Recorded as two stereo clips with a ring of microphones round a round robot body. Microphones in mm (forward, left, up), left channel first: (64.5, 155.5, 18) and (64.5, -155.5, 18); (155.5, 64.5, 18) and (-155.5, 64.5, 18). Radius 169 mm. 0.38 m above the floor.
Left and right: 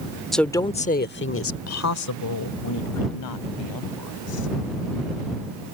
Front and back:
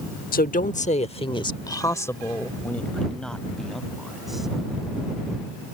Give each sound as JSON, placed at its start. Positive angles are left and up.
{"t": 0.3, "sound": "a woman speaking", "azimuth_deg": 0}